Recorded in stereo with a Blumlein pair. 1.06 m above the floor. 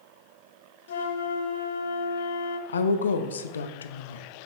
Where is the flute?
60° left, 0.8 m.